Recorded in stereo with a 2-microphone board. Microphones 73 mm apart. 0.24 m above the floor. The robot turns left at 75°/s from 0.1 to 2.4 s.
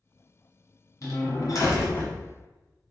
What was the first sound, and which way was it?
A door slam, 115° left.